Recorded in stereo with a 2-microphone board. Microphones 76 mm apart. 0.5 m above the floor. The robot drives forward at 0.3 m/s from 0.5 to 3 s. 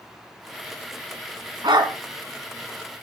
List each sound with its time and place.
1.6 s a dog barking: 80° right, 1.8 m